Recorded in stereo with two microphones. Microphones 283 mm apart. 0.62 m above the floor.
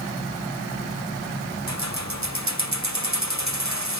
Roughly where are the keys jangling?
Right.